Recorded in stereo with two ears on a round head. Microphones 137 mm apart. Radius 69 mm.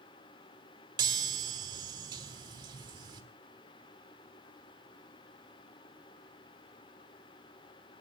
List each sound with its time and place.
1.0 s a chime: 30° right (ahead or behind), 1.6 m